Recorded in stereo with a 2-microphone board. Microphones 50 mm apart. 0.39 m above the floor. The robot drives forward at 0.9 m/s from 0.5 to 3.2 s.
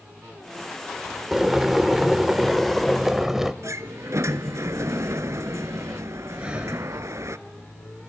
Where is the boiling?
10° right (ahead or behind), 1.0 m; by 3.5 s 5° right (ahead or behind), 1.5 m.